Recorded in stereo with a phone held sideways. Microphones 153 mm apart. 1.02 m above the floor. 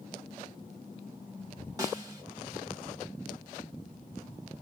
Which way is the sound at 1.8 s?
25° right (ahead or behind).